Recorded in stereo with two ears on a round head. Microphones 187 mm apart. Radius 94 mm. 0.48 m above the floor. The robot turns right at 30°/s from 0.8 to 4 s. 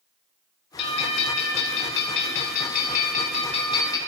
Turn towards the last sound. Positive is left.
turn(degrees=160)